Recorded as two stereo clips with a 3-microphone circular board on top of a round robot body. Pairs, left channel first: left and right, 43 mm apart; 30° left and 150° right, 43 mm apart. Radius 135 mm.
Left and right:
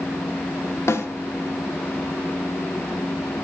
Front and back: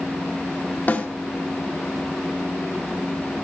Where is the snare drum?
80° left, 2.5 m.